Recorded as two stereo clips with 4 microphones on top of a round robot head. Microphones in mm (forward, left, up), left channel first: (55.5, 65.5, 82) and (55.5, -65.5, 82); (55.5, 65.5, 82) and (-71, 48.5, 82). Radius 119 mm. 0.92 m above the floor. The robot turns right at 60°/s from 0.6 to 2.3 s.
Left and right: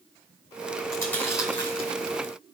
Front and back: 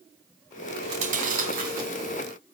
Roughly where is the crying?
No crying in this recording.